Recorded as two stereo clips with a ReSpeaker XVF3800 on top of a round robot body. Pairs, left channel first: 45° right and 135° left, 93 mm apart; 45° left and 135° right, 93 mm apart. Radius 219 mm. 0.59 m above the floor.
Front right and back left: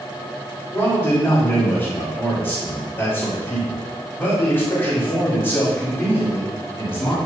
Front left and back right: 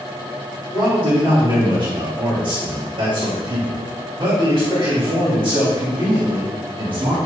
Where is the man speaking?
110° right, 5.5 m.